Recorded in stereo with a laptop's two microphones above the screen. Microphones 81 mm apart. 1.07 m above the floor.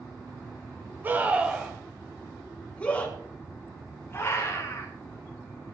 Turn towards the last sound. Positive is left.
turn(degrees=40)  # may be behind; listen again after turning